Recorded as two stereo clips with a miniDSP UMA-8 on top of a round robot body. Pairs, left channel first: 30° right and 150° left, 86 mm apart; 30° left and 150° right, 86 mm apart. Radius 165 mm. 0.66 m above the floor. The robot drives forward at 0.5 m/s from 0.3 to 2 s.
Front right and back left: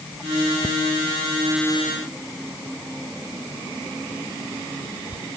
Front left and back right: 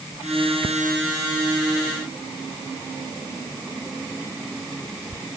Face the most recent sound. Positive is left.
No sound to turn to.